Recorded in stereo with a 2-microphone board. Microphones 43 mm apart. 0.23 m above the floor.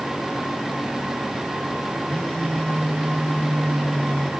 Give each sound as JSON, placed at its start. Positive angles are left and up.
{"t": 2.1, "sound": "a phone buzzing", "side_deg": 25, "distance_m": 3.0}